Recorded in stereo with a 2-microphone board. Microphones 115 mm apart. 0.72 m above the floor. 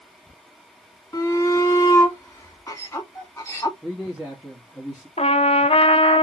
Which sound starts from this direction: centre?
A man speaking, at 3.8 s.